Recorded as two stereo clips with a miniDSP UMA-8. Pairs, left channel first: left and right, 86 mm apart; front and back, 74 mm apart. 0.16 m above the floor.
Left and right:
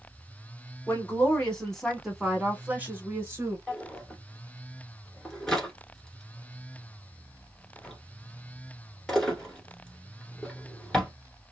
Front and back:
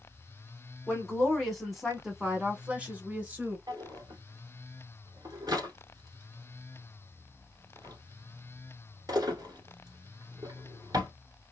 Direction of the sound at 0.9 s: 60° left.